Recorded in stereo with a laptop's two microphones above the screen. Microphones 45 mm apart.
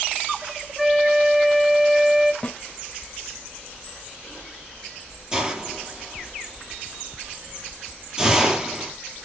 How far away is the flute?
About 1.2 m.